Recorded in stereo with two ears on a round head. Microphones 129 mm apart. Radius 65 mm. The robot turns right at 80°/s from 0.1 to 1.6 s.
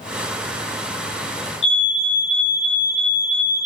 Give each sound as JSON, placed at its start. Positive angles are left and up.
{"t": 1.6, "sound": "a fire alarm", "side_deg": 40, "distance_m": 2.0}